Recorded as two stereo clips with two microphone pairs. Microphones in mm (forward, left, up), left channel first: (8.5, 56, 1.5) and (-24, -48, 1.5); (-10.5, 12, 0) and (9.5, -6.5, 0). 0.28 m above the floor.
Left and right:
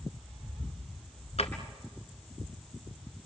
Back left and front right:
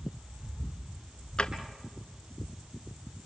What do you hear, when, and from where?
1.4 s a drawer: 85° left, 1.6 m